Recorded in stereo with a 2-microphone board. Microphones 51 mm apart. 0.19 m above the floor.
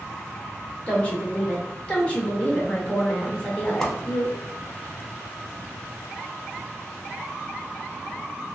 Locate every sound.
0.9 s a woman speaking: 25° left (ahead or behind), 1.1 m
3.8 s a whoosh: 10° left (ahead or behind), 0.7 m